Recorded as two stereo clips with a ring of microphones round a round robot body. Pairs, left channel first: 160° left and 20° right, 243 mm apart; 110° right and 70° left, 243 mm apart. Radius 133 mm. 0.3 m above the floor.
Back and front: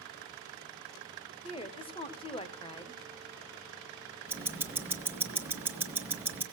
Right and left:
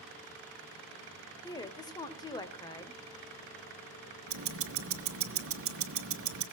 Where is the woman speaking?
165° right, 1.3 m.